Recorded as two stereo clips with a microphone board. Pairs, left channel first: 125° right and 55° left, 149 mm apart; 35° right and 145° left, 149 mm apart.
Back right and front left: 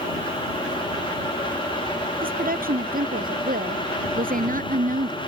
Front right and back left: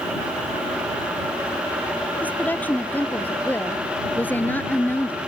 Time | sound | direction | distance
2.2 | a woman speaking | 45° left | ?